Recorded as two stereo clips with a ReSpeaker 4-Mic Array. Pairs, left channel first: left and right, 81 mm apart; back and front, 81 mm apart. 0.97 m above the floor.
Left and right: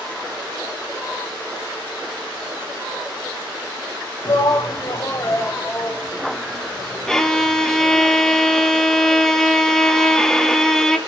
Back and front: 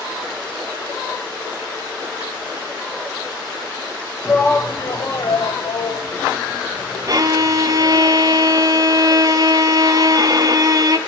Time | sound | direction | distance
4.2 | a shout | 105° left | 1.4 m
7.1 | a violin | 5° left | 1.1 m